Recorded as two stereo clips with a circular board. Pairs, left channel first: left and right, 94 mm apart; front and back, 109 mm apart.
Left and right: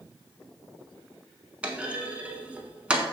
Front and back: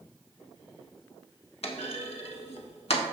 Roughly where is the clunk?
Ahead.